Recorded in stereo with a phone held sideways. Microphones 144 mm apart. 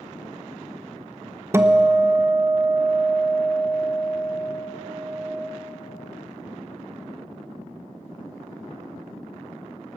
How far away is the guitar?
About 0.7 m.